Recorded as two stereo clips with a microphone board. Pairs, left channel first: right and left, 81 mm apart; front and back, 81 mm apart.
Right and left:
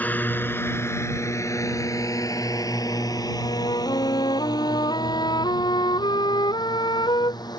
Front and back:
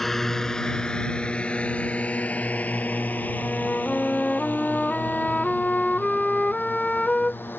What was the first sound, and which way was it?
A drone, 80° right.